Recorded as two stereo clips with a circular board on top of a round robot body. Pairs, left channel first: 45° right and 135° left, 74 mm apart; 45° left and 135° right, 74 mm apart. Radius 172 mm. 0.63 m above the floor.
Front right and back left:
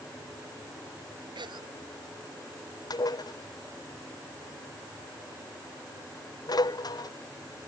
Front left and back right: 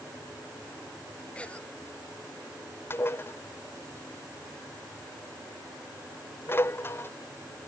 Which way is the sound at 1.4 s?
120° left.